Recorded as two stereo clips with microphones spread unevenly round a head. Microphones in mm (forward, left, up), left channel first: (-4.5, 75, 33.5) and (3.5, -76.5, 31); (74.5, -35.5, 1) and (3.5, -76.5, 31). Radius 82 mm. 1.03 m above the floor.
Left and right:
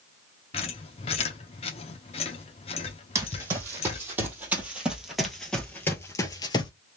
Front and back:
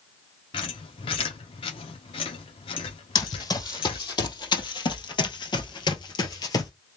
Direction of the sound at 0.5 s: 55° left.